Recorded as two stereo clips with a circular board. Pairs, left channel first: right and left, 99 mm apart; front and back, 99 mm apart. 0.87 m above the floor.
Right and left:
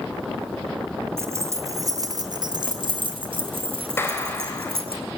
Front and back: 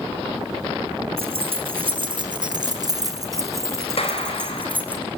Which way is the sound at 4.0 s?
25° right.